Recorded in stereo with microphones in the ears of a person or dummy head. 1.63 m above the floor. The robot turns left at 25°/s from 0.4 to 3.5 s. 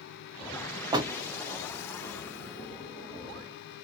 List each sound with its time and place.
0.9 s a door slam: 20° right (ahead or behind), 0.7 m